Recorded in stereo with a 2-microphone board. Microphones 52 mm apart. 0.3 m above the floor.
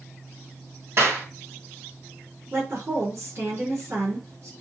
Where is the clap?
60° right (ahead or behind), 2 m.